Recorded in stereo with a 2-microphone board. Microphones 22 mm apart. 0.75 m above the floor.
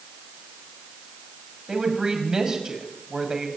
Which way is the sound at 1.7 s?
30° right (ahead or behind).